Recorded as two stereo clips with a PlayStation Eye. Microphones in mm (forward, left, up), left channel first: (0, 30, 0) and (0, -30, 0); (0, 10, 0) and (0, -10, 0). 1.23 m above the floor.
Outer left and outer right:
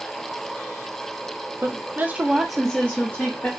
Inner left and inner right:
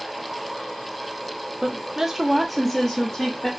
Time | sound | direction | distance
1.6 | a woman speaking | 45° right (ahead or behind) | 0.7 m